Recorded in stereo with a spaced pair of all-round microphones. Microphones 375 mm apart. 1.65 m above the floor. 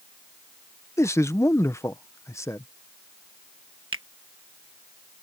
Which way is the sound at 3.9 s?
35° right (ahead or behind).